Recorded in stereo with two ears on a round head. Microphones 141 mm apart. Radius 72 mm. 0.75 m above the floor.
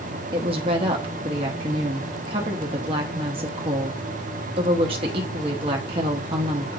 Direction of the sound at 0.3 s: 35° right (ahead or behind).